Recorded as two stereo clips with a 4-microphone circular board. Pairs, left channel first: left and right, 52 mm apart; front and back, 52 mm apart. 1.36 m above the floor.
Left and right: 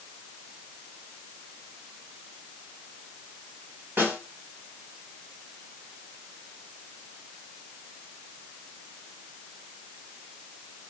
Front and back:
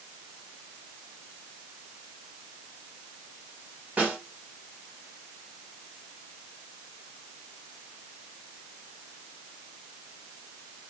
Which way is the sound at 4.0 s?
120° right.